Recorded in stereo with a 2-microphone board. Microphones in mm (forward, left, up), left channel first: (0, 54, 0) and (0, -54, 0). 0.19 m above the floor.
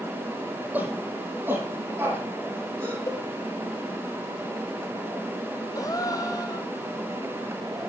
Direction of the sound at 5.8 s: 35° left (ahead or behind).